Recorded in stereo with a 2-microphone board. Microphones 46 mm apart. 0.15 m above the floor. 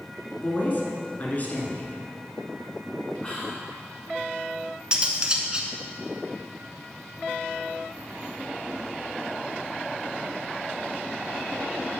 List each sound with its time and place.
0.4 s a woman speaking: 40° left (ahead or behind), 1.6 m
3.2 s whispering: 25° left (ahead or behind), 1.2 m
4.9 s cutlery clinking: 20° right (ahead or behind), 0.9 m